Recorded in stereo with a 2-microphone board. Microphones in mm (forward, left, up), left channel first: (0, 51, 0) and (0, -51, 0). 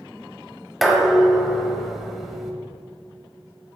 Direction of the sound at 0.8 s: Centre (ahead or behind).